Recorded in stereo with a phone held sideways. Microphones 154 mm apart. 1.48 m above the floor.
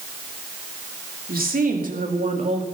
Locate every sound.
1.3 s a woman speaking: 75° right (ahead or behind), 3 m; by 2.6 s 45° right (ahead or behind), 2.5 m